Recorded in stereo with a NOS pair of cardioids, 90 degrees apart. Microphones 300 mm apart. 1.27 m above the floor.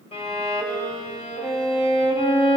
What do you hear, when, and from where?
0.1 s a violin: 20° left, 2.5 m